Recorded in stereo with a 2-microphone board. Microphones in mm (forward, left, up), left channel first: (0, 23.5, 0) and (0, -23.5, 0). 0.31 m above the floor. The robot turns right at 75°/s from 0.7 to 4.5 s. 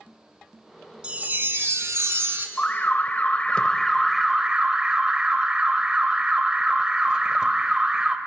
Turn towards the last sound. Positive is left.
turn(degrees=-145)